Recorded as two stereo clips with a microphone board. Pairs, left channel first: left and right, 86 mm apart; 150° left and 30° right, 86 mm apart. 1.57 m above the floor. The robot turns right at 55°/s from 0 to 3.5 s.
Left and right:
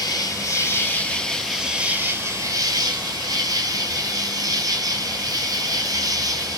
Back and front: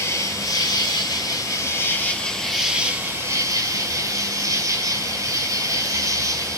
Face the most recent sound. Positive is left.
turn(degrees=-70)